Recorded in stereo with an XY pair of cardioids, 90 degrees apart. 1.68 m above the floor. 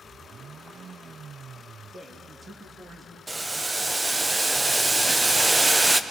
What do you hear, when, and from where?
1.9 s a man speaking: 35° right, 3 m
3.3 s boiling: 20° right, 0.9 m